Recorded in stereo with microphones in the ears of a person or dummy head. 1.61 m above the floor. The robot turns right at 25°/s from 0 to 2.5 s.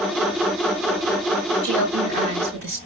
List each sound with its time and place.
1.6 s a woman speaking: 50° right (ahead or behind), 4.5 m; by 2.8 s 70° right (ahead or behind), 4.5 m